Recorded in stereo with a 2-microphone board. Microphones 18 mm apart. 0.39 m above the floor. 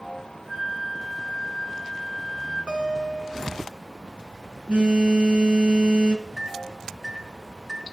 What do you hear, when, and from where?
0.5 s a flute: 25° right (ahead or behind), 6.5 m
2.7 s a guitar: 65° right (ahead or behind), 2.5 m
4.7 s a phone buzzing: 75° right (ahead or behind), 3 m
6.4 s a microwave: 15° right (ahead or behind), 2.5 m